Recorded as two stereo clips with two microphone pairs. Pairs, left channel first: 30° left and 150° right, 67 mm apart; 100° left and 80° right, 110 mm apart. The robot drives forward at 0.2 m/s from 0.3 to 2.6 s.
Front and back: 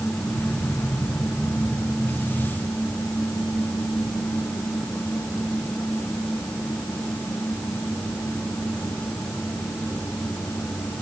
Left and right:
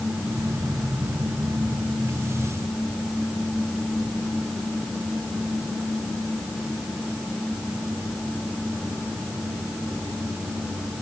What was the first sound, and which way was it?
Only background noise.